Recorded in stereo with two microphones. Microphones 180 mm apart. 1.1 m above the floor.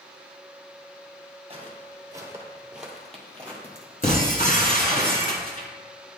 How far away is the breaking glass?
About 1.6 m.